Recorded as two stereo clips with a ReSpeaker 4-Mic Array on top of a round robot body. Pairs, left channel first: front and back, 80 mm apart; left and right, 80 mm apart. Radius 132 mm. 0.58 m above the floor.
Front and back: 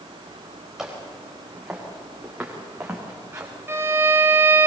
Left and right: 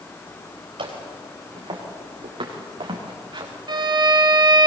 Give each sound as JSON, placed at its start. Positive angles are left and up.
{"t": 0.8, "sound": "footsteps", "azimuth_deg": -95, "distance_m": 6.0}
{"t": 3.7, "sound": "a violin", "azimuth_deg": -120, "distance_m": 2.0}